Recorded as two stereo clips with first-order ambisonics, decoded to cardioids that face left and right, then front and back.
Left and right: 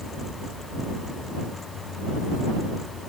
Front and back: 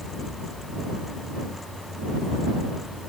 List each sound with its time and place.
Only background noise.